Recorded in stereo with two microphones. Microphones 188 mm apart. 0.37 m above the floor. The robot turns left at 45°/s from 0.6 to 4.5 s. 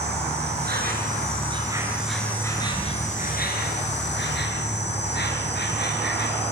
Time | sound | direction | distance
0.0 | an insect | 110° right | 6 m